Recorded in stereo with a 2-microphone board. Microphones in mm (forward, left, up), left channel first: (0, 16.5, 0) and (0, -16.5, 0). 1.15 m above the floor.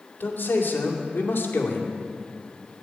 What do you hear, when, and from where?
0.2 s a man speaking: 90° left, 2.5 m